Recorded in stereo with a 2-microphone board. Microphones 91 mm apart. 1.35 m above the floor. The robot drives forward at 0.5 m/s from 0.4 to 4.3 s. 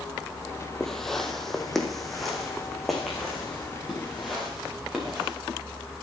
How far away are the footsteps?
About 1.7 m.